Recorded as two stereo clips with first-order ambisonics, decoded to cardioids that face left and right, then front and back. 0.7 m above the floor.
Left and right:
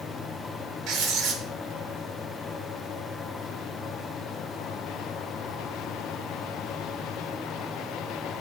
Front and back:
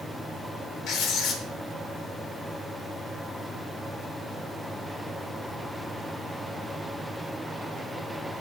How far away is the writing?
About 0.8 m.